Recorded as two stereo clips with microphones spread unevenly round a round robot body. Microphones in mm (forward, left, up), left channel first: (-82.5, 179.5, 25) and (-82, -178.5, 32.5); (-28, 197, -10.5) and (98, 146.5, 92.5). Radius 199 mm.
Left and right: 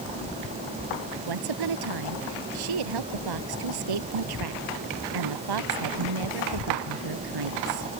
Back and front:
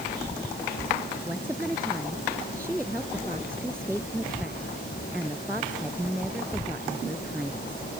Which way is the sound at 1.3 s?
110° right.